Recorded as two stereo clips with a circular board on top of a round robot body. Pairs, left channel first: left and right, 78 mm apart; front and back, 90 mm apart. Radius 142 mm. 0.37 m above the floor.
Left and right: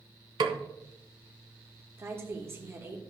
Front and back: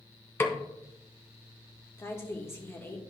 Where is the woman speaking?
50° right, 1.8 m.